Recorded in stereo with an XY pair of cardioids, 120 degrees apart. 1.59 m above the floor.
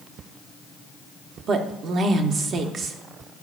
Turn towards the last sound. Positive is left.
turn(degrees=-50)